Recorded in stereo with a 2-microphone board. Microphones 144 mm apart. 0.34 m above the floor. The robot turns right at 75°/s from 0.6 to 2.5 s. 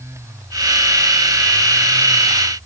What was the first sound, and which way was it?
Only background noise.